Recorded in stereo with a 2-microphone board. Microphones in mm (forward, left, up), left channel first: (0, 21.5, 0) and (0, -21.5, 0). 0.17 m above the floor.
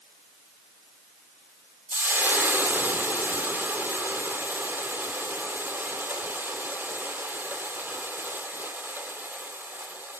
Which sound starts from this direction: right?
Frying, at 1.9 s.